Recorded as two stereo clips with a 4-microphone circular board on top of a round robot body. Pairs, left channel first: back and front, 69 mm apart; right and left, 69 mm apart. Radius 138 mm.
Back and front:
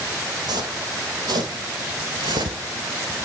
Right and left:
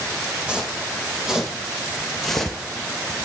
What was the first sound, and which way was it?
Footsteps, 10° left.